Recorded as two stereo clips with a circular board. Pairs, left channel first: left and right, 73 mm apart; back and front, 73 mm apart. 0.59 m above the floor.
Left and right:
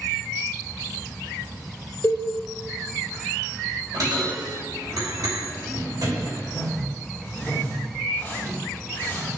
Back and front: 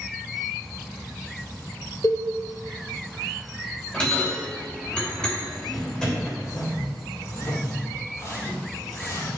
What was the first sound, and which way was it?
A cowbell, 140° left.